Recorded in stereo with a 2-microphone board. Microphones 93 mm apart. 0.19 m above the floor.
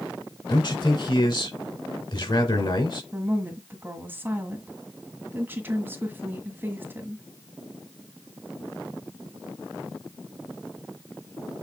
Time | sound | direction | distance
0.5 | a man speaking | 55° left (ahead or behind) | 2.5 m
3.1 | a woman speaking | 20° right (ahead or behind) | 1.7 m